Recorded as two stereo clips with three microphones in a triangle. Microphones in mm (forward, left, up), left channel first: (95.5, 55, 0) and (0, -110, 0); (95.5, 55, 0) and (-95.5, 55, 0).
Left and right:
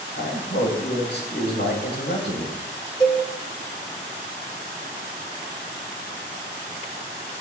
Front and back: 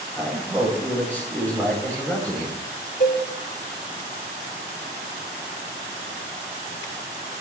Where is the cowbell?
5° right, 2.5 m.